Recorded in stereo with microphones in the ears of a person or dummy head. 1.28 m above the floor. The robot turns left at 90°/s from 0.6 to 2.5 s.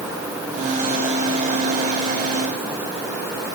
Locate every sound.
Only background noise.